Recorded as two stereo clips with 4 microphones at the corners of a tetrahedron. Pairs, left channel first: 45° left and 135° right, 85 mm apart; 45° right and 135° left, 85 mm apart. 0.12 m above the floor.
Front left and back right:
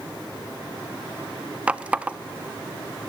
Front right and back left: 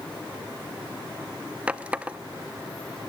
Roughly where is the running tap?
Behind.